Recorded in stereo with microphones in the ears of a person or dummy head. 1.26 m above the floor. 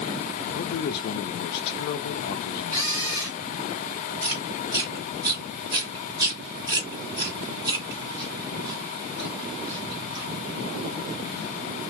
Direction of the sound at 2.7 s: 15° right (ahead or behind).